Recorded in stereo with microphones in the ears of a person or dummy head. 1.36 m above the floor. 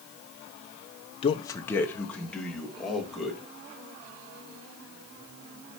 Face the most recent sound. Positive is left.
turn(degrees=-5)  # may be behind; listen again after turning